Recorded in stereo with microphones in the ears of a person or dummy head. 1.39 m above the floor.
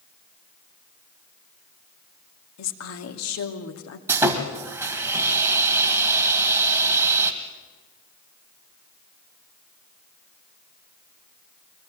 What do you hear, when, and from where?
2.6 s a woman speaking: 70° left (ahead or behind), 2.5 m
4.1 s sawing: 15° right (ahead or behind), 1.9 m